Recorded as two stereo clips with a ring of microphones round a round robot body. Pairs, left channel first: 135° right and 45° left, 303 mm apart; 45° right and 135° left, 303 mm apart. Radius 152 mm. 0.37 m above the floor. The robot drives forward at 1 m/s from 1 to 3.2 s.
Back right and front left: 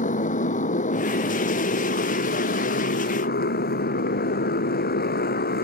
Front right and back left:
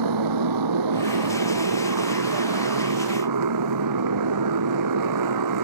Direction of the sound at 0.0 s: 160° left.